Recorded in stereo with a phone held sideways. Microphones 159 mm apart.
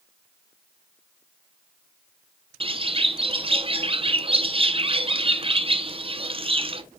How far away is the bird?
About 0.7 m.